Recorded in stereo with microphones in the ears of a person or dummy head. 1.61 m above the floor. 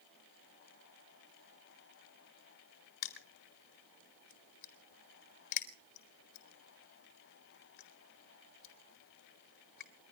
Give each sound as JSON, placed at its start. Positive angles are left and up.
{"t": 3.0, "sound": "crushing", "side_deg": 60, "distance_m": 2.0}